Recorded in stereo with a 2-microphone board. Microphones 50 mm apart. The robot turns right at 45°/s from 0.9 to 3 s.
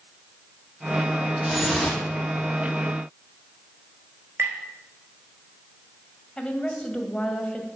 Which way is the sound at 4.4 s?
55° right (ahead or behind).